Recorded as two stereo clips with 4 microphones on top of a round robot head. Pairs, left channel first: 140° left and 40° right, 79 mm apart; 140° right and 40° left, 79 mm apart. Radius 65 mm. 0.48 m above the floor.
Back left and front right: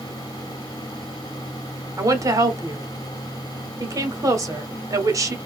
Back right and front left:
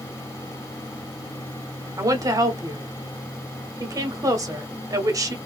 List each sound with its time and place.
2.0 s a woman speaking: straight ahead, 1.4 m